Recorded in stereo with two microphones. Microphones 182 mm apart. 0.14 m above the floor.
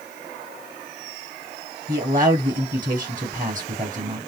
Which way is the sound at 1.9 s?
45° right (ahead or behind).